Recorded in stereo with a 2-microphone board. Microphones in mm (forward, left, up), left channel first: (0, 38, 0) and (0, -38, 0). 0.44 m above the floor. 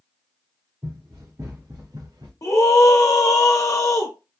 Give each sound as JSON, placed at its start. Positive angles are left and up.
{"t": 0.8, "sound": "running footsteps", "side_deg": -40, "distance_m": 2.0}
{"t": 2.4, "sound": "a scream", "side_deg": 50, "distance_m": 1.2}